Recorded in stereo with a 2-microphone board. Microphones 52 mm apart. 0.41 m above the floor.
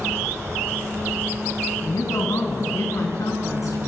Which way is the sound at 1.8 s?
70° left (ahead or behind).